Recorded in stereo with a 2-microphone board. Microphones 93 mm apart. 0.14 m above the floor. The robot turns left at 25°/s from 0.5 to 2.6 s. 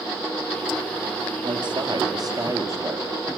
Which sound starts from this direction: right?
A man speaking, at 1.4 s.